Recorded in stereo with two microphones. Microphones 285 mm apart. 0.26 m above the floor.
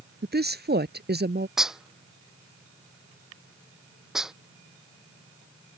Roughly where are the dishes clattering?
Centre.